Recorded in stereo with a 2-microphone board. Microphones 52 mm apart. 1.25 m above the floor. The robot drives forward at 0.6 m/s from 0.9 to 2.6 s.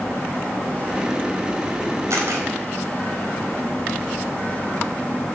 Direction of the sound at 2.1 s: 70° right (ahead or behind).